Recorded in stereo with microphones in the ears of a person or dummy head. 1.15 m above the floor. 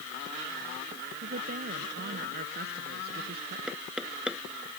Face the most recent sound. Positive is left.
turn(degrees=0)  # may be behind; listen again after turning